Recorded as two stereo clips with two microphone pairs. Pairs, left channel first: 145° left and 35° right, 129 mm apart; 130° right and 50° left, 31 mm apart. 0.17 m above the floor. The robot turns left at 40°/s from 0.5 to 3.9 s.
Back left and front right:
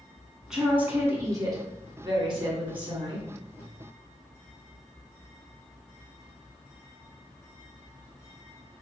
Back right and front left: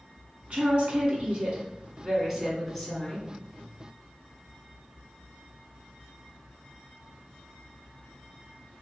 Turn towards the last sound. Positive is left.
turn(degrees=-90)